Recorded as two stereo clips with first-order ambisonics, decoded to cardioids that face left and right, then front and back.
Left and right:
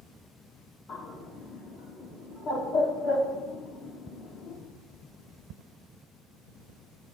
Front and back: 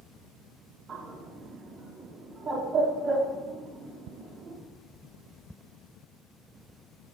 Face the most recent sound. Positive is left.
turn(degrees=120)